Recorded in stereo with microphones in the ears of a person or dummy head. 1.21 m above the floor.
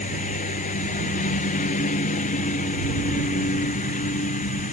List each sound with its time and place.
0.0 s a lawn mower: 40° left (ahead or behind)